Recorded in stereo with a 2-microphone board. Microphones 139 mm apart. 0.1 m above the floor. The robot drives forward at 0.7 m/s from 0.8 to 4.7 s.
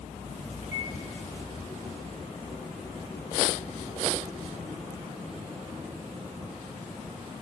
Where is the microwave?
60° left (ahead or behind), 8 m.